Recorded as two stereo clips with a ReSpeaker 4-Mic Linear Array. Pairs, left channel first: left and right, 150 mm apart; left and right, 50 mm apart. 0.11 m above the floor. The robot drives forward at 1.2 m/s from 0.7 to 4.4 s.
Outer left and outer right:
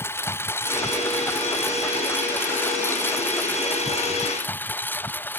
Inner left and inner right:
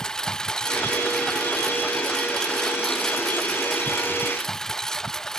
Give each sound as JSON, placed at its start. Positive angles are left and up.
{"t": 0.0, "sound": "a lawn mower", "side_deg": 15}